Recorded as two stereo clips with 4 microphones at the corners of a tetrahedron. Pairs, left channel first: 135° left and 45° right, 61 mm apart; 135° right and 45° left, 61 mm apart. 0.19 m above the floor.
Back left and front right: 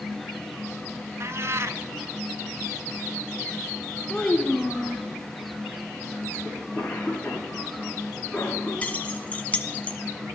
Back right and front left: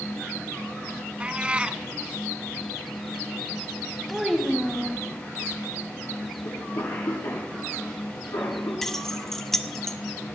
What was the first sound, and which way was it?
A cat meowing, 25° right.